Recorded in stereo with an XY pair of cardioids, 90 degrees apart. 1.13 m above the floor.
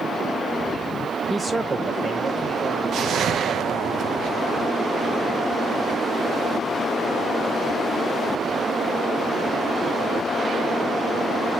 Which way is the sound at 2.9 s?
65° right.